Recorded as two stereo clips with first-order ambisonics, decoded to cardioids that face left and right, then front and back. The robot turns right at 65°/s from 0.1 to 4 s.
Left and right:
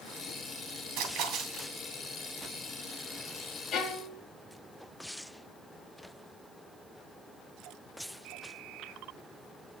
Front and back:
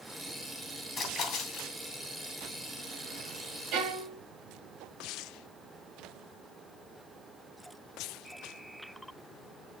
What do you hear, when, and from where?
1.0 s a splash: 65° right, 2.5 m; by 1.7 s 15° right, 2.5 m
3.7 s a violin: 145° left, 2 m; by 4.2 s 165° left, 2 m